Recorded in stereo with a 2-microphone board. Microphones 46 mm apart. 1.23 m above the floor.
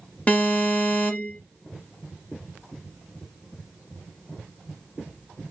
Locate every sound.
0.3 s an alarm: 30° left (ahead or behind), 1.3 m